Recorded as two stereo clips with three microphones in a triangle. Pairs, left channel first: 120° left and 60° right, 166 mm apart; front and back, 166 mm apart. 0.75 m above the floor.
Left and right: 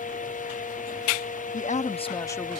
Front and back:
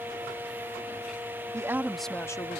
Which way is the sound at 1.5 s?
115° left.